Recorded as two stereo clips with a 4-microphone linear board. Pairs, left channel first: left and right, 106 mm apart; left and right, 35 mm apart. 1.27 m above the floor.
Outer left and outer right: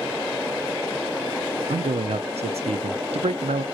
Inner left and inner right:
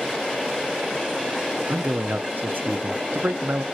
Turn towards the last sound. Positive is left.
turn(degrees=-80)